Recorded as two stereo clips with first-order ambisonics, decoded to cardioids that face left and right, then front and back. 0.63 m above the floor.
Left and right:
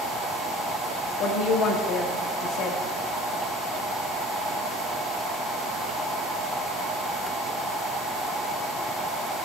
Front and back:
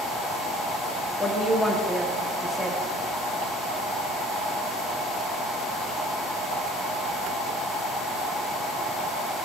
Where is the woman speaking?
85° left, 1.0 m.